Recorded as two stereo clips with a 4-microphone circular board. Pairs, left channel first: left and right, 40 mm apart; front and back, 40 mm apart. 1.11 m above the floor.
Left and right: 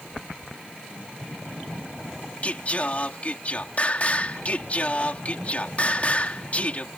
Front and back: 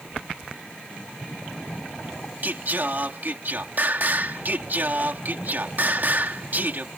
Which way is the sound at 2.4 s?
140° left.